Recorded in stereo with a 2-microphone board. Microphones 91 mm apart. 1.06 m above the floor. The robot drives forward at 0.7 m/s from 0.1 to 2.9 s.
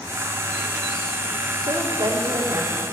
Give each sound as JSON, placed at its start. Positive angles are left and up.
{"t": 1.6, "sound": "a woman speaking", "side_deg": -50, "distance_m": 3.0}